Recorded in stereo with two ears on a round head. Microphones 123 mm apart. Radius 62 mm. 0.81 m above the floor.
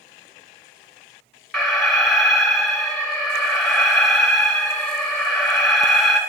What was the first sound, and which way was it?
An alarm, centre (ahead or behind).